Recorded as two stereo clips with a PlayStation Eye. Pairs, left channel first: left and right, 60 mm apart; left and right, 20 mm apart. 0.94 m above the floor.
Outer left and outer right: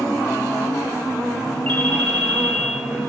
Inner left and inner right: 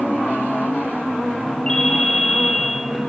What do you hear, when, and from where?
1.7 s a ringtone: 25° left (ahead or behind), 1.8 m